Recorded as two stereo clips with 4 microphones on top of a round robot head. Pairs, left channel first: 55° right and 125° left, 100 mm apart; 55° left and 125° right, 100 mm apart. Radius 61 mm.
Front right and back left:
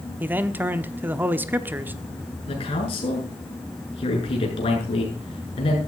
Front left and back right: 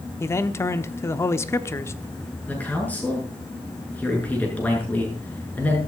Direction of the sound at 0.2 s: 75° left.